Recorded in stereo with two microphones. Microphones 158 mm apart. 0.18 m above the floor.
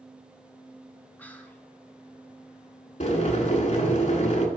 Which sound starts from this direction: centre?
Whispering, at 1.2 s.